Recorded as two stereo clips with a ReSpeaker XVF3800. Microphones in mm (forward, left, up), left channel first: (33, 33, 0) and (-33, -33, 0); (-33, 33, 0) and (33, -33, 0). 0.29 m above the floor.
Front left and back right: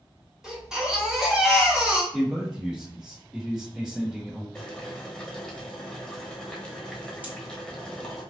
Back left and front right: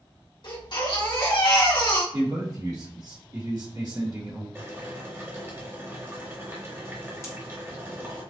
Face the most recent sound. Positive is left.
turn(degrees=160)